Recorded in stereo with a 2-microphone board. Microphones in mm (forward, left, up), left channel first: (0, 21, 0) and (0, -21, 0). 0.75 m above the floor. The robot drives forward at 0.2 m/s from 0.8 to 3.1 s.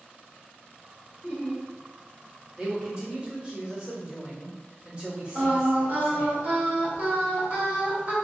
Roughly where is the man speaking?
Right.